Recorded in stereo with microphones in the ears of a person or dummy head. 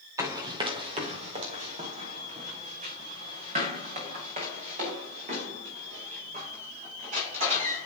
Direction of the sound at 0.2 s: 15° right (ahead or behind).